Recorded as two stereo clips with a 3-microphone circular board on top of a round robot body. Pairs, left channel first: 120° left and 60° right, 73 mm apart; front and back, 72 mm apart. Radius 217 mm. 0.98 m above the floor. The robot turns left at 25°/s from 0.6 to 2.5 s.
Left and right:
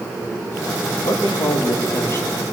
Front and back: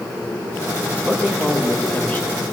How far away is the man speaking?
About 2.5 m.